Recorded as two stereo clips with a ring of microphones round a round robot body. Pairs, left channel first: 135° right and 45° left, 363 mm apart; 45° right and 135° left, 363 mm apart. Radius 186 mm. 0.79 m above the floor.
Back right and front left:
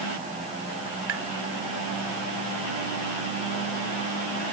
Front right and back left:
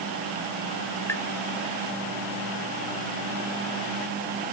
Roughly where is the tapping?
Ahead left.